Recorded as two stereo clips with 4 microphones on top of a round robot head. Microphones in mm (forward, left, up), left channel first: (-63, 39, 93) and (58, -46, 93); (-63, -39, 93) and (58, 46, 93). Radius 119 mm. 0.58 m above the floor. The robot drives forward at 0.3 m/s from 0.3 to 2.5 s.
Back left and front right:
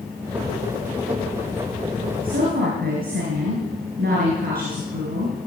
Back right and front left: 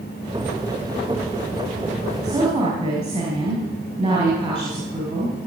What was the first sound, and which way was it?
A woman speaking, 30° right.